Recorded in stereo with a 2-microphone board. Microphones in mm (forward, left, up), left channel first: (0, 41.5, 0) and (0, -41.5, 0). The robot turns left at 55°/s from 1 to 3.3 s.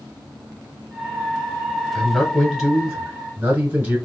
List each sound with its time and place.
1.9 s a man speaking: 10° left (ahead or behind), 1.2 m; by 4.0 s 20° right (ahead or behind), 1.2 m